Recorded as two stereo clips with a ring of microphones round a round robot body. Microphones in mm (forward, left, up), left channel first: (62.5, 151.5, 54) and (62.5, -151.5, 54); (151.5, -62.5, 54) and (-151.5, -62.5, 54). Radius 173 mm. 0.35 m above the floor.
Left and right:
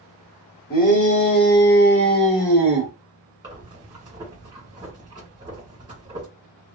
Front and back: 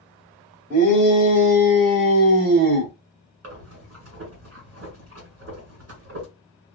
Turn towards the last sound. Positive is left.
turn(degrees=-160)